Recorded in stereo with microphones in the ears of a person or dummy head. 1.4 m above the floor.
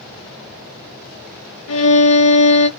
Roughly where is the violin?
Left.